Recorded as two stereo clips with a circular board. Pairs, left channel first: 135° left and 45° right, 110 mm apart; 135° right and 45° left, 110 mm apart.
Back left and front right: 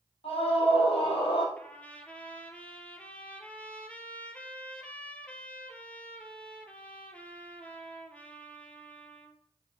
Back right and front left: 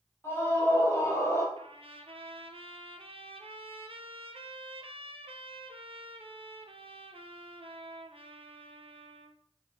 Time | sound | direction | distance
0.2 | a scream | 160° left | 4 m
1.6 | a trumpet | 60° left | 0.9 m